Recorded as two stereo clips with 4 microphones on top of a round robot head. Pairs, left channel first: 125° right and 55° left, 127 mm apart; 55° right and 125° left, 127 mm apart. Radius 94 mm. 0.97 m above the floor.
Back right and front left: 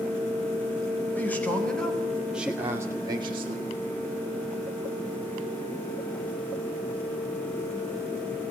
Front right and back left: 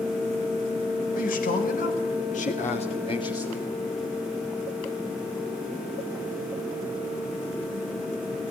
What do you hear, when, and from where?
1.1 s a man speaking: 50° right, 4.5 m; by 3.8 s 25° left, 2 m